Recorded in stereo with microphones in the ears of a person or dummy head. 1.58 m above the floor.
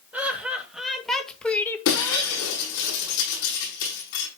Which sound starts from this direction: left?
Breaking glass, at 1.9 s.